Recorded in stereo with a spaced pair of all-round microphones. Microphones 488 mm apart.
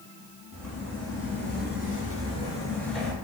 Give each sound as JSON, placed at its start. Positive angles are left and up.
{"t": 0.5, "sound": "footsteps", "side_deg": 30, "distance_m": 1.5}